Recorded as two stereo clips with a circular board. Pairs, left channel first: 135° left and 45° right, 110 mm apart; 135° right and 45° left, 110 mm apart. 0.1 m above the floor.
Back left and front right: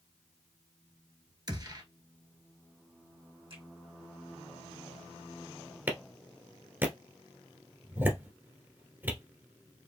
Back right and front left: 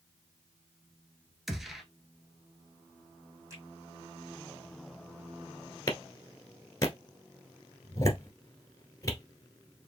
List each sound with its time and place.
1.5 s a gunshot: 45° right, 1.1 m
3.5 s a finger snap: 20° right, 3 m
5.9 s a clap: 105° right, 1.3 m